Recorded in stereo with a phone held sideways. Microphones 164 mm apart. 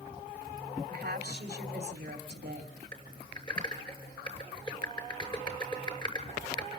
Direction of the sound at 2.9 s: 25° left (ahead or behind).